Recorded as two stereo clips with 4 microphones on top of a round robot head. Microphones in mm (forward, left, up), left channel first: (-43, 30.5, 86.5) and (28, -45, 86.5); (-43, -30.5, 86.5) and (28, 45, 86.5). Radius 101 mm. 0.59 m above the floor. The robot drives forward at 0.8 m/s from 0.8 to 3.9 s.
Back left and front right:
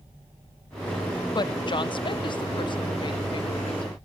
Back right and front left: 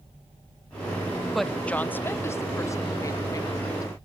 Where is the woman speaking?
135° left, 0.7 m; by 3.9 s 170° left, 2.5 m.